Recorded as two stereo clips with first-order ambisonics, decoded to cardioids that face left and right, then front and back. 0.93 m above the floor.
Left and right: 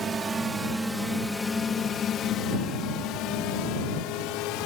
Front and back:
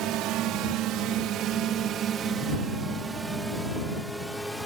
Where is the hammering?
I don't hear hammering.